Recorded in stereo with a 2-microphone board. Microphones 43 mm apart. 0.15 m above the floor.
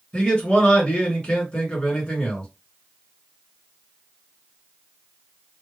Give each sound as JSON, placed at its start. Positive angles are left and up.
{"t": 0.1, "sound": "a man speaking", "side_deg": 20, "distance_m": 1.6}